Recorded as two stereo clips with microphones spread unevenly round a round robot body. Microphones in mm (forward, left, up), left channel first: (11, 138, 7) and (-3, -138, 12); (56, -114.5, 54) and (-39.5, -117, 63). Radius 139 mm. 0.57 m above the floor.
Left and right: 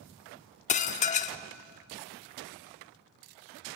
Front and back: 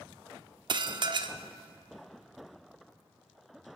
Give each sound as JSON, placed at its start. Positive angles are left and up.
{"t": 0.7, "sound": "dishes clattering", "azimuth_deg": 145, "distance_m": 0.9}